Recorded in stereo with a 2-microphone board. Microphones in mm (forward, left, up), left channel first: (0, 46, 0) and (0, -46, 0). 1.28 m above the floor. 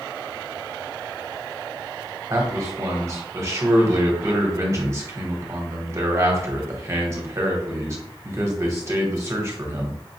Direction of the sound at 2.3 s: 30° right (ahead or behind).